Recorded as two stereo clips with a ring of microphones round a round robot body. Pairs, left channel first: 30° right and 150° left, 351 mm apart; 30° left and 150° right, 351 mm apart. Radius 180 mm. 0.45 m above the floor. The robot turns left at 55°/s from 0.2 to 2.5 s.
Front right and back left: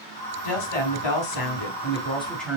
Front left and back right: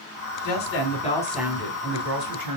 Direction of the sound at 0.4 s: 10° right.